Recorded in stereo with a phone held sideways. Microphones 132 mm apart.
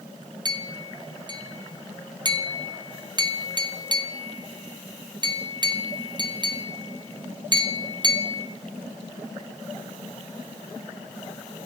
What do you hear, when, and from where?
0.5 s a clink: 35° right (ahead or behind), 0.5 m